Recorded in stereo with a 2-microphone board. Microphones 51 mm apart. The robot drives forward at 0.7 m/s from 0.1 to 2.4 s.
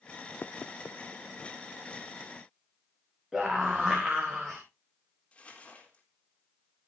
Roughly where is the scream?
Centre.